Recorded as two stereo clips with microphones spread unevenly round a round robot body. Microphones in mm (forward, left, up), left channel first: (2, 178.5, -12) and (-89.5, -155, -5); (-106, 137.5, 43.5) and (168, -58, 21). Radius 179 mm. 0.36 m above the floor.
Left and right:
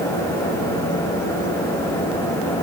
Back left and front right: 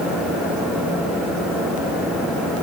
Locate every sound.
Only background noise.